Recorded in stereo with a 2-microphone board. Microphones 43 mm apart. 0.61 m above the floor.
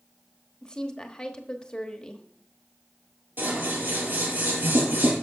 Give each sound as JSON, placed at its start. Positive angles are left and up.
{"t": 0.6, "sound": "a woman speaking", "side_deg": 20, "distance_m": 1.1}
{"t": 3.4, "sound": "scissors", "side_deg": -45, "distance_m": 4.5}